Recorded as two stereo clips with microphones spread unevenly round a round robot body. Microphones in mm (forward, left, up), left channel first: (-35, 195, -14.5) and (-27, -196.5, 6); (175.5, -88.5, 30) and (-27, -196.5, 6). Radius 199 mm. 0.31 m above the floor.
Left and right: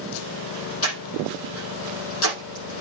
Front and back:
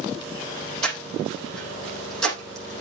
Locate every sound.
0.8 s breathing: 150° left, 5.5 m